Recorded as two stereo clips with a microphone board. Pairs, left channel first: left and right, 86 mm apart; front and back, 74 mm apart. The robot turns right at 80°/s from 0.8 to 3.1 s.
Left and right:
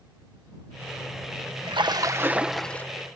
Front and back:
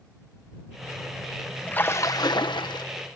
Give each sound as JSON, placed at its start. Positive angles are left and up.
{"t": 1.7, "sound": "a splash", "azimuth_deg": -70}